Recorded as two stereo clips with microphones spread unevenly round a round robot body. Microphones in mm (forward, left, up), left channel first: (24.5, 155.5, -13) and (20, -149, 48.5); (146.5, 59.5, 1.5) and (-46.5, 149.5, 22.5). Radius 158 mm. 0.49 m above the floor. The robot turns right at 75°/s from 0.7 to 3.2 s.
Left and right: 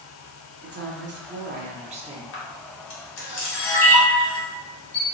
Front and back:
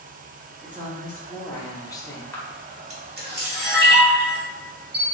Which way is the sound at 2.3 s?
50° left.